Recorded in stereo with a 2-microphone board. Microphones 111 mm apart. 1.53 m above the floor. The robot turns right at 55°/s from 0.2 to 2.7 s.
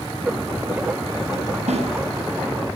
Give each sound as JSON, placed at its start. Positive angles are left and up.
{"t": 1.7, "sound": "a snare drum", "side_deg": -85, "distance_m": 6.0}